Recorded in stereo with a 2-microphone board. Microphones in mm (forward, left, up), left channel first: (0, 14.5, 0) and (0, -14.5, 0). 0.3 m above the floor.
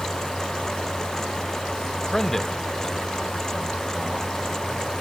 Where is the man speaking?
15° left (ahead or behind), 1.0 m; by 4.8 s 10° left (ahead or behind), 2.5 m.